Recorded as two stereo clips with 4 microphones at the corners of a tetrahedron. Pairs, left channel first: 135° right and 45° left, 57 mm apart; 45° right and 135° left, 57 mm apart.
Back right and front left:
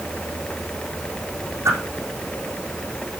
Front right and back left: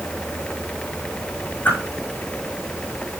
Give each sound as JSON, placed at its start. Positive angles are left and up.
{"t": 1.6, "sound": "a whoosh", "azimuth_deg": 15, "distance_m": 5.5}